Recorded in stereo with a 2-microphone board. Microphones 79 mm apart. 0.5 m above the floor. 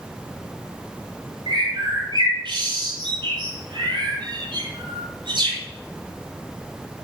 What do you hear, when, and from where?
1.5 s a bird: 80° right, 6.5 m